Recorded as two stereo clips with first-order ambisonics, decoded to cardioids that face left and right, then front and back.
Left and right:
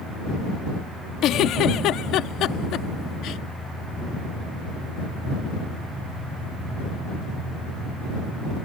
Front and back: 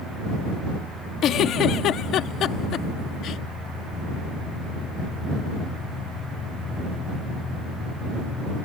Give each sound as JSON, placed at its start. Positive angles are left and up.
{"t": 1.2, "sound": "a giggle", "azimuth_deg": 45}